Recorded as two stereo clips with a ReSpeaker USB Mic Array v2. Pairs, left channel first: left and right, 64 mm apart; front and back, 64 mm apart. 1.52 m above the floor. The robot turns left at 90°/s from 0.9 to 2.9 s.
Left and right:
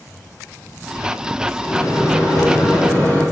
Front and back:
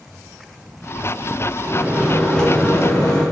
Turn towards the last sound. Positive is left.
turn(degrees=30)